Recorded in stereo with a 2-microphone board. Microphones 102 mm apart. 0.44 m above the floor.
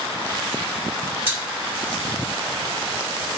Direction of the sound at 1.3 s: 20° right (ahead or behind).